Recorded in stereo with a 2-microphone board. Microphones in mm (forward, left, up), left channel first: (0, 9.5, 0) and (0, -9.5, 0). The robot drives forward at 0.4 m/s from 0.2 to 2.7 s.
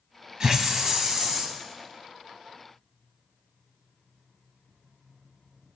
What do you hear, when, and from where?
0.4 s a hiss: 35° right (ahead or behind), 1.6 m; by 1.6 s 30° right (ahead or behind), 2.0 m